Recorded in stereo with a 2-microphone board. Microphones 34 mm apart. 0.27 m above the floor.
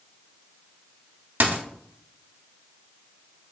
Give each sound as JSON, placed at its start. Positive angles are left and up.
{"t": 1.4, "sound": "a dropped coin", "side_deg": -60, "distance_m": 0.5}